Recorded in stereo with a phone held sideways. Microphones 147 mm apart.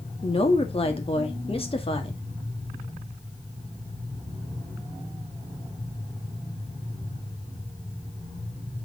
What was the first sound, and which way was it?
A woman speaking, 40° left (ahead or behind).